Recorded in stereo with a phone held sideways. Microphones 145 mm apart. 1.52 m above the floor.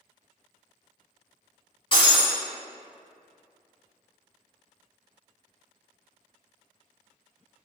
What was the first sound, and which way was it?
Breaking glass, 35° left (ahead or behind).